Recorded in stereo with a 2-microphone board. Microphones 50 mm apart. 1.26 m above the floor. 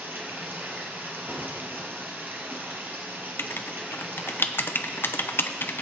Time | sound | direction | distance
0.0 | running water | 40° right (ahead or behind) | 2.5 m
1.3 | a door slam | 85° right | 5 m
3.4 | writing | 50° left (ahead or behind) | 0.8 m